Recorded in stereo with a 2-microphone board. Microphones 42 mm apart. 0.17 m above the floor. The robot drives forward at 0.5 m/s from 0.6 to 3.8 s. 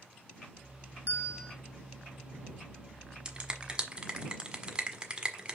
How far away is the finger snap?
About 1.3 m.